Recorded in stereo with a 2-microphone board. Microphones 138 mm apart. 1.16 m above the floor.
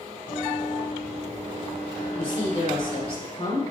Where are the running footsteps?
70° left (ahead or behind), 3 m.